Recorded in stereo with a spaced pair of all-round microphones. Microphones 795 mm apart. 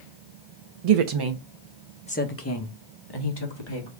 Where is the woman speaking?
55° right (ahead or behind), 0.5 m; by 3.9 s 35° left (ahead or behind), 1.6 m.